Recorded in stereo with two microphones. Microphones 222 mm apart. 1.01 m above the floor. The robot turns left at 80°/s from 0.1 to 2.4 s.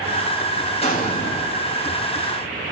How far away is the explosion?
About 5 m.